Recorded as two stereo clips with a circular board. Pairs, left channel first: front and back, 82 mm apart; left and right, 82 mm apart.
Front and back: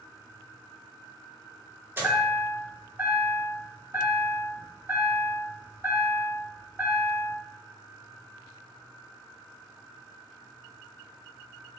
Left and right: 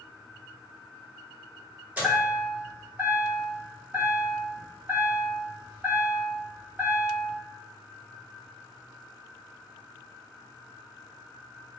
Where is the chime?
140° right, 1.3 m.